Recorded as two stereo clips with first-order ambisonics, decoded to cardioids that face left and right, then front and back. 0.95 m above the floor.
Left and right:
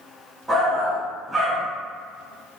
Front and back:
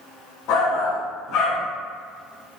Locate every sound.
0.5 s a shout: 10° right, 1.2 m